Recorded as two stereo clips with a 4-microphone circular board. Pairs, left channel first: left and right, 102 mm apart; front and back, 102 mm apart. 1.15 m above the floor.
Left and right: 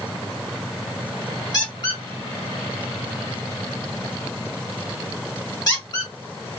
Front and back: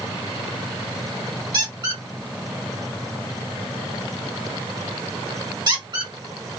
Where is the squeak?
140° left, 1.2 m.